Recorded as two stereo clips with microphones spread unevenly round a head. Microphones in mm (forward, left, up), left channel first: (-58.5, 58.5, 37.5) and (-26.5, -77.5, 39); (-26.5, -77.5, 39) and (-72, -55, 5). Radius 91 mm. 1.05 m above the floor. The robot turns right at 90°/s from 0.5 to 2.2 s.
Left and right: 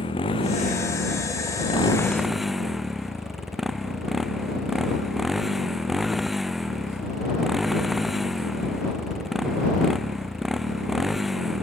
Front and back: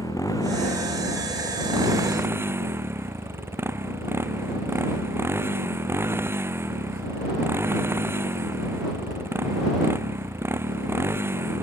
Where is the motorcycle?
40° left; by 11.6 s 165° right.